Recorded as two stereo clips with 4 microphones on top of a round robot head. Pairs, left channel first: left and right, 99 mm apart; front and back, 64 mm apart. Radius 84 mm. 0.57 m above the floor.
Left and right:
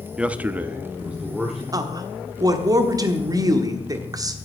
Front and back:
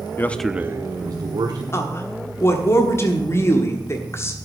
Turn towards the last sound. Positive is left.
turn(degrees=-45)